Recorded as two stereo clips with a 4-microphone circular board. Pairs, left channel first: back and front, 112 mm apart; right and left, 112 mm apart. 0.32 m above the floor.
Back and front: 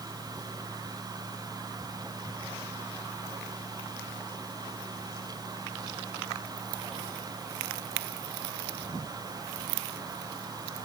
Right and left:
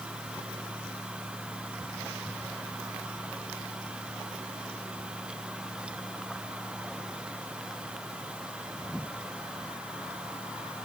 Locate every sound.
Only background noise.